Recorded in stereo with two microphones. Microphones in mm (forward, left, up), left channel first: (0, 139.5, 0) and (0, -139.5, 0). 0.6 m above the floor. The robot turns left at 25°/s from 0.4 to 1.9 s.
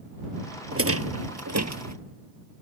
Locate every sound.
0.7 s a rattle: 50° right (ahead or behind); by 1.9 s 80° right